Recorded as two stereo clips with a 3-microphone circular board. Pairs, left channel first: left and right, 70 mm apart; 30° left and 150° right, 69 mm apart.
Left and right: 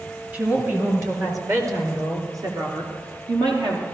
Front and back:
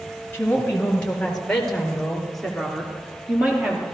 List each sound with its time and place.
0.3 s a woman speaking: 35° right, 3 m; by 3.8 s 70° right, 4 m